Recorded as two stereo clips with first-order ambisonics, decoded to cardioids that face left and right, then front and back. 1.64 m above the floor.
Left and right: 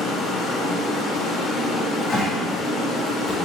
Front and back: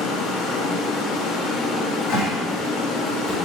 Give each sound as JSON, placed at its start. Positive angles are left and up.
{"t": 0.0, "sound": "running water", "azimuth_deg": 15, "distance_m": 1.7}
{"t": 1.7, "sound": "a cupboard door", "azimuth_deg": 30, "distance_m": 4.0}